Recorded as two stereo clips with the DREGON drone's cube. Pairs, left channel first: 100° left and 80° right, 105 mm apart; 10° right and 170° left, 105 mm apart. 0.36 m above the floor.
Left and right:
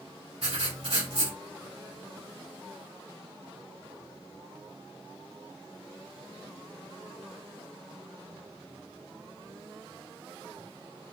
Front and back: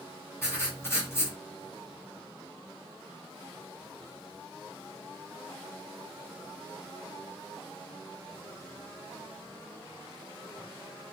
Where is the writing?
75° right, 1.9 m.